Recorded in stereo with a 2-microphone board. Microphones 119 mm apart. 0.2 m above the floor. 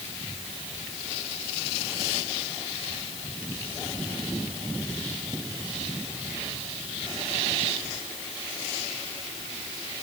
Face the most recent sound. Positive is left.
No sound to turn to.